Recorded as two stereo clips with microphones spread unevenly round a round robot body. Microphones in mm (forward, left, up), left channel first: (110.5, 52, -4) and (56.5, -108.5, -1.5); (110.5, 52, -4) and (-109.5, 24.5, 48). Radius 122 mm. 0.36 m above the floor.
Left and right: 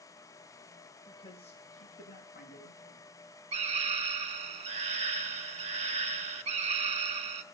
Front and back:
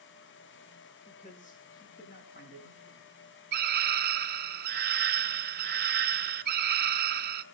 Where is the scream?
130° right, 1.2 m.